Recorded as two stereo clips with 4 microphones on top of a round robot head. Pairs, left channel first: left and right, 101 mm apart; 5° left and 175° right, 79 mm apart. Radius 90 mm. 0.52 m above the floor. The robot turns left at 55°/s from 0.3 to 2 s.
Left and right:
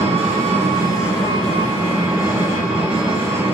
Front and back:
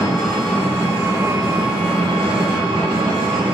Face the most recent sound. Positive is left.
turn(degrees=-165)